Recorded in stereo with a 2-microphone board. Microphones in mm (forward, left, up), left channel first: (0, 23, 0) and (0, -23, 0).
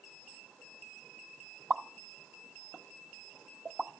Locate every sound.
1.7 s a pop: 15° right (ahead or behind), 1.1 m